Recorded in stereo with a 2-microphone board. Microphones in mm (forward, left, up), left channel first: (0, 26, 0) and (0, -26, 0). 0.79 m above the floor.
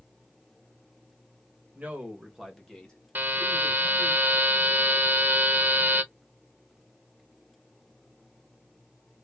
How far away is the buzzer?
About 0.5 m.